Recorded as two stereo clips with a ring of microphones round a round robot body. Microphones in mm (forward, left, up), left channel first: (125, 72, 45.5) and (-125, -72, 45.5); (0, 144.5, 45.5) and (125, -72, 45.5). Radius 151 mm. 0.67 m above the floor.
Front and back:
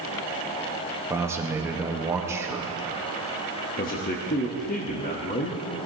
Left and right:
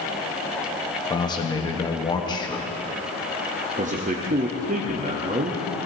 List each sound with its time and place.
1.1 s a man speaking: 150° left, 1.1 m
3.8 s a man speaking: 15° right, 1.0 m